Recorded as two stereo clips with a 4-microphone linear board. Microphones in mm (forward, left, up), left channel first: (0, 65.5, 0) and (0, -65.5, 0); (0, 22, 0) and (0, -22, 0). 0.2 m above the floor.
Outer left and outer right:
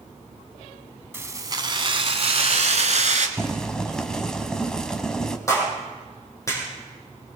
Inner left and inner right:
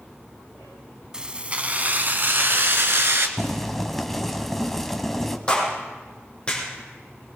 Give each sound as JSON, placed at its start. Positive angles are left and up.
{"t": 1.1, "sound": "keys jangling", "side_deg": -20, "distance_m": 0.8}
{"t": 3.4, "sound": "boiling", "side_deg": 5, "distance_m": 1.1}
{"t": 5.5, "sound": "a clap", "side_deg": 25, "distance_m": 5.0}